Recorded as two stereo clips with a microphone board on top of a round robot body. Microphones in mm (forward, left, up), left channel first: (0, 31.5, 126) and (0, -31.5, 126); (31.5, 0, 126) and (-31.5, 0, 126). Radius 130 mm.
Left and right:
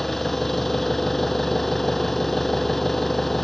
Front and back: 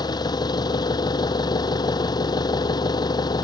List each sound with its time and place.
0.0 s an engine running: straight ahead